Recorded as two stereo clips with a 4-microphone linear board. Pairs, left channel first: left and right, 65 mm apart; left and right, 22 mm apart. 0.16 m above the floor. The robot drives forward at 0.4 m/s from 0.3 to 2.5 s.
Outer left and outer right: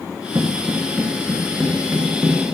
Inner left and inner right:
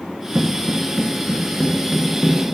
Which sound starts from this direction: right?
Footsteps, at 0.3 s.